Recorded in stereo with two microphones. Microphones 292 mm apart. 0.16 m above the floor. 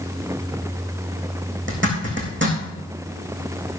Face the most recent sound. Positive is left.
turn(degrees=-40)  # may be behind; listen again after turning